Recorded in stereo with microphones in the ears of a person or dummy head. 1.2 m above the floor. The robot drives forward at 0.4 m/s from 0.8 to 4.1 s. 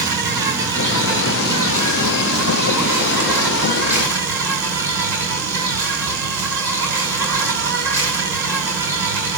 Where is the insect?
15° right (ahead or behind), 3 m; by 9.4 s 10° right (ahead or behind), 4 m.